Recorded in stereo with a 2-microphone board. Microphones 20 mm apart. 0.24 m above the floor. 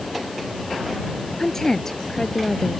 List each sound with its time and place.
1.4 s a woman speaking: 20° left (ahead or behind)